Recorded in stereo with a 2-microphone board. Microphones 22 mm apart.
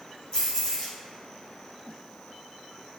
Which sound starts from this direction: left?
Keys jangling, at 0.3 s.